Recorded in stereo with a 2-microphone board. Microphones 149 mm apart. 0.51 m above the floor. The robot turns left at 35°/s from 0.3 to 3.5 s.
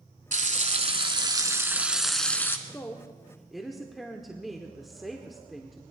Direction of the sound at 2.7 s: 20° left (ahead or behind).